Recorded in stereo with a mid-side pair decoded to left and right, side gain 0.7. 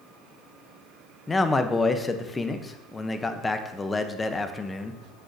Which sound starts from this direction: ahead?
A man speaking, at 1.3 s.